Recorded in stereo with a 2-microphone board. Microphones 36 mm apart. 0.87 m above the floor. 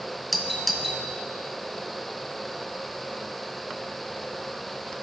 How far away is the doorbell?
About 0.8 m.